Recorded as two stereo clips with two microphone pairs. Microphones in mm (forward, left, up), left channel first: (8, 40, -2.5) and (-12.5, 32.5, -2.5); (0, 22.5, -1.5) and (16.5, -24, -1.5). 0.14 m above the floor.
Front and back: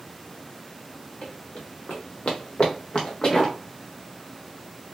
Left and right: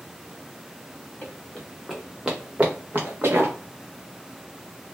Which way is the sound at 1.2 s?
45° left.